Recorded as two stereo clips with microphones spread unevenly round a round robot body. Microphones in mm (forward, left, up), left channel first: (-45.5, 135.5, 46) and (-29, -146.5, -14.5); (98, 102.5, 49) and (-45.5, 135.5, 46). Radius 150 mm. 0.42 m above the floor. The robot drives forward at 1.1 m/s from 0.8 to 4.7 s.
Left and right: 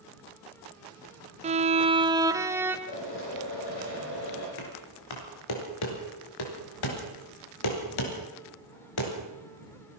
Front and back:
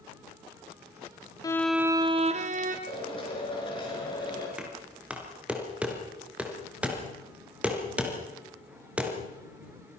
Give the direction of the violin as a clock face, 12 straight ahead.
2 o'clock.